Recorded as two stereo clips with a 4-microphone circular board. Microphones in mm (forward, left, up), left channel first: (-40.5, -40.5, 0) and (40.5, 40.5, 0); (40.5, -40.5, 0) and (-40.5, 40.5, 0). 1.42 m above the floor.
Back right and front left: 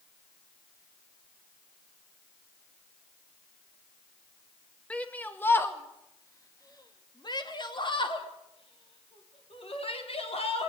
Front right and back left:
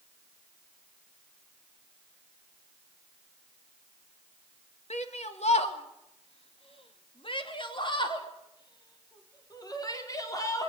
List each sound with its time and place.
4.9 s a shout: 55° right, 2.0 m; by 10.7 s 105° right, 4 m